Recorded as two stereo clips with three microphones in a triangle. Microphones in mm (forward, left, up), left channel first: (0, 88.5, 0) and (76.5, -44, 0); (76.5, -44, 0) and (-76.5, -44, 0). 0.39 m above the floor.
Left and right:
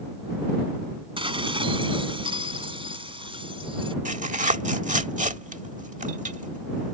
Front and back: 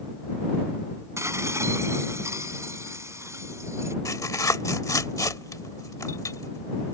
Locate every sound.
1.2 s dishes clattering: 110° right
4.0 s tearing paper: 65° right